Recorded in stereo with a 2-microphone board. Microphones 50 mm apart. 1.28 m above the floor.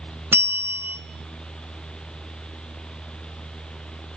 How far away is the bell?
About 1.2 m.